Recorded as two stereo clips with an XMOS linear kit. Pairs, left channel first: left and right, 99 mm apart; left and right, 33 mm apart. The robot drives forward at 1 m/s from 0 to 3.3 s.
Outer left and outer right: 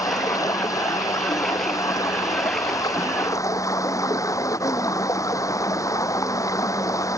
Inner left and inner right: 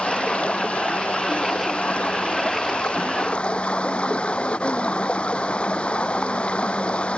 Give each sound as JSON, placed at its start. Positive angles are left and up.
{"t": 0.0, "sound": "running water", "side_deg": 35}